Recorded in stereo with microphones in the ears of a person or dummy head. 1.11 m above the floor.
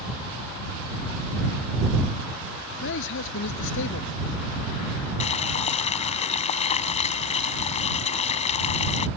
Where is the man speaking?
65° left (ahead or behind).